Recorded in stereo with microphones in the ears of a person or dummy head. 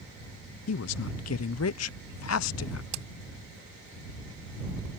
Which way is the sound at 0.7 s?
70° left (ahead or behind).